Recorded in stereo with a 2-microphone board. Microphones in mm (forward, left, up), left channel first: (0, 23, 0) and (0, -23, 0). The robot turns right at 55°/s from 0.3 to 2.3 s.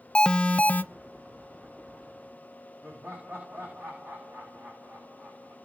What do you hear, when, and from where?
0.1 s an alarm: 20° left (ahead or behind), 0.6 m; by 0.8 s 40° left (ahead or behind), 0.6 m
2.8 s laughter: 50° right (ahead or behind), 7 m